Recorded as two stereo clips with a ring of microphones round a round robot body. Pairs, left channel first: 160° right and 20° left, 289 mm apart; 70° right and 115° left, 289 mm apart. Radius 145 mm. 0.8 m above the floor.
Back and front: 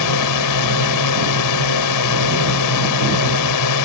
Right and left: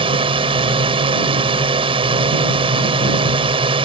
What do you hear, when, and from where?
0.0 s a drone: 175° right